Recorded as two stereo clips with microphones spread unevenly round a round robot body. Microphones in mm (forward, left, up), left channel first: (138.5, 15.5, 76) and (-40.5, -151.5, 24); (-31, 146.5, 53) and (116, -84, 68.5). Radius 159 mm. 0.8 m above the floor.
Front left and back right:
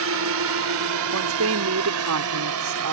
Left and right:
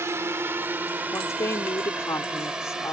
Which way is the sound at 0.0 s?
140° right.